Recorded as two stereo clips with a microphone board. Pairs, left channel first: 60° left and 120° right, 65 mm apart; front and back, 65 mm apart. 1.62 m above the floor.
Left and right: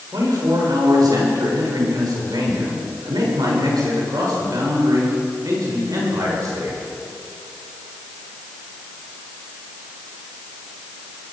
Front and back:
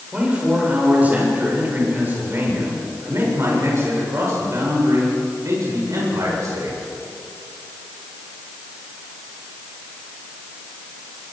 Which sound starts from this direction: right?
A man speaking, at 0.1 s.